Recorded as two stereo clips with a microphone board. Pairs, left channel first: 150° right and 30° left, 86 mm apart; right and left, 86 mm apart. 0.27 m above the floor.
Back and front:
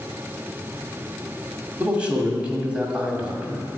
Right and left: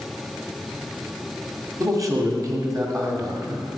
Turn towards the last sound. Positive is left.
turn(degrees=100)